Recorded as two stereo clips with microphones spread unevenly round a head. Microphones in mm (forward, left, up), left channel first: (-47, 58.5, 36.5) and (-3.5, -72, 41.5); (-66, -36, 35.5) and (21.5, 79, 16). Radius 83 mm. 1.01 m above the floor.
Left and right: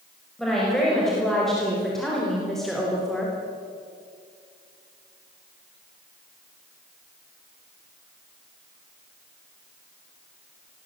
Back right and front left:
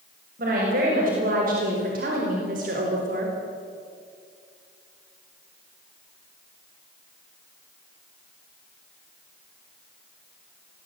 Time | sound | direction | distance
0.4 | a woman speaking | 20° left | 6 m